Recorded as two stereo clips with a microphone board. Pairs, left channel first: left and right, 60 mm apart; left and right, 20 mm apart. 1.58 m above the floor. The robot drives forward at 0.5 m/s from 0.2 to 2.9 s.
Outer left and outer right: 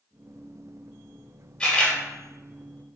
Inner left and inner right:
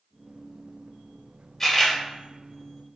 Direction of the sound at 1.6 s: 15° left (ahead or behind).